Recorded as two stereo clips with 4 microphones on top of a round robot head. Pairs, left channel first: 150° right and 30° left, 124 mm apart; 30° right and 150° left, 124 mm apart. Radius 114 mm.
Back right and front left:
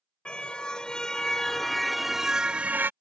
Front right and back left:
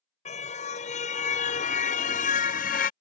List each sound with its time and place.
0.2 s a car horn: 65° right; by 2.9 s 40° right